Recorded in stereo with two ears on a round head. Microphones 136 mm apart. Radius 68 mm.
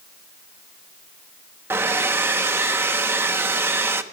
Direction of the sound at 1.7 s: 15° right (ahead or behind).